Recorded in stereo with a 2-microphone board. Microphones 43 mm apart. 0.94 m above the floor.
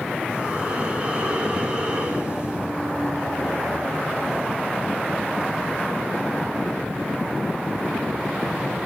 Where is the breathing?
30° right (ahead or behind), 3.5 m.